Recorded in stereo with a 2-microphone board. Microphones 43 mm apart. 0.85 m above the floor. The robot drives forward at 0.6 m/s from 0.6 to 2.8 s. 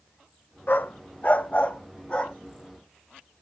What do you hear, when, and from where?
0.7 s a dog barking: 45° left (ahead or behind), 0.8 m; by 2.4 s 25° left (ahead or behind), 1.5 m